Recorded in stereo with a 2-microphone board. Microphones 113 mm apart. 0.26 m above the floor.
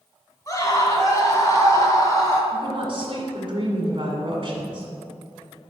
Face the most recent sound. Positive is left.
turn(degrees=-50)  # may be behind; listen again after turning